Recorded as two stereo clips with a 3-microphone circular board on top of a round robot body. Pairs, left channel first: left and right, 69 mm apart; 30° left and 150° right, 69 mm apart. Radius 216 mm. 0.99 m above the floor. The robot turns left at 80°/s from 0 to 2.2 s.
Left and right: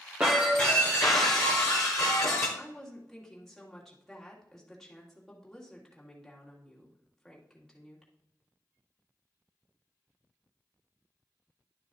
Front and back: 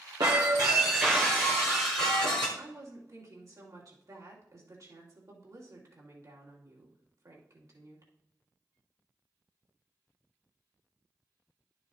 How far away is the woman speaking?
About 2.5 m.